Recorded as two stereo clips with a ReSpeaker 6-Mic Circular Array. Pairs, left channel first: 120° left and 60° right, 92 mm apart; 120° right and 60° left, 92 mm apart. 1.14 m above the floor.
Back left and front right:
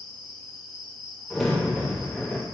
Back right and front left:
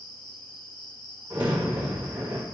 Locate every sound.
0.0 s an insect: 150° right, 1.7 m
1.3 s a crack: 25° left, 1.5 m